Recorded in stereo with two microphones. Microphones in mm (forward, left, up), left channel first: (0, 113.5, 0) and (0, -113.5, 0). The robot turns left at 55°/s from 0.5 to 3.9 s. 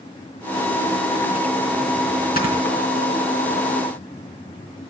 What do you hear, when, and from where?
2.4 s snoring: 40° left (ahead or behind), 3.5 m; by 2.5 s 30° left (ahead or behind), 3.5 m